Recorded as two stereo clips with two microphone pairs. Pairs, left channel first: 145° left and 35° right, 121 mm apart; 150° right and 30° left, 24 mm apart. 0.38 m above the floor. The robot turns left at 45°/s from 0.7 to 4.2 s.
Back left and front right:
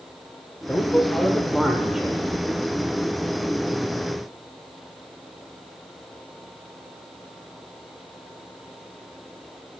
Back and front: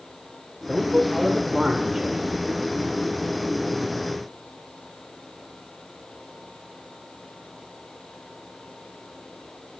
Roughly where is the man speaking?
Left.